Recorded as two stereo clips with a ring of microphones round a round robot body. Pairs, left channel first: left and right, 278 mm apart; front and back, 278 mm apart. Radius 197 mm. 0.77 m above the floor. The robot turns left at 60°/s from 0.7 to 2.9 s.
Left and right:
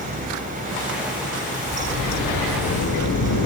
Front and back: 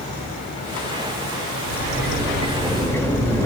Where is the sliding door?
160° left, 1.5 m; by 3.5 s 80° left, 1.5 m.